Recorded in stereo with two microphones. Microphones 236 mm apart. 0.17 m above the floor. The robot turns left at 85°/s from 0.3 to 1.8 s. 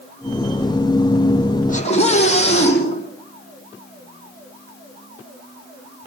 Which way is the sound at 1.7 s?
35° left (ahead or behind).